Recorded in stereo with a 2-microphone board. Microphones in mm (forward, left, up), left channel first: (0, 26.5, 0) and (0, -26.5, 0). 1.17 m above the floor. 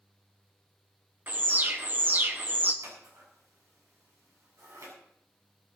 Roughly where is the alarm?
Right.